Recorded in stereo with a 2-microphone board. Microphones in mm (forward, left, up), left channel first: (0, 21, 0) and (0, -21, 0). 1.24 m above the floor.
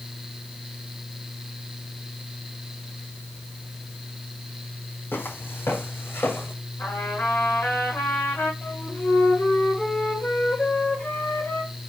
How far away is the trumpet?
About 7 m.